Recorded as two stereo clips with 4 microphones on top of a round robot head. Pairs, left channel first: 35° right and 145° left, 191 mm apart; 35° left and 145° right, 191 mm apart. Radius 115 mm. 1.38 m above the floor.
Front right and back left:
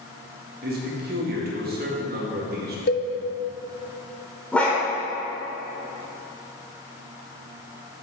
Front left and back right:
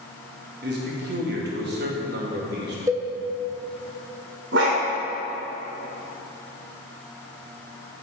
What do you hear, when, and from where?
0.6 s a man speaking: 175° right, 2 m
2.9 s a cowbell: 70° right, 1.0 m
4.5 s a dog barking: 120° right, 2 m